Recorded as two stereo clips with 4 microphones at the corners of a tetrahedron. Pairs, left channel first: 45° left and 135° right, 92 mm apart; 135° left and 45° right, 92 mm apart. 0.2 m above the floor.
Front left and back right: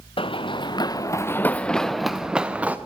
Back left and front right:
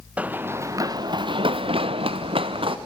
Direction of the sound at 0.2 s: 30° left.